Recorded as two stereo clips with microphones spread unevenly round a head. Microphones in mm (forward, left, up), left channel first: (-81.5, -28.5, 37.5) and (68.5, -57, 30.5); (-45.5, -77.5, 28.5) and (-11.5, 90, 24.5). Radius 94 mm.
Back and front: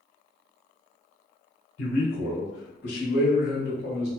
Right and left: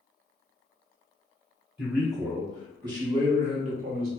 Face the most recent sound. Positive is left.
turn(degrees=115)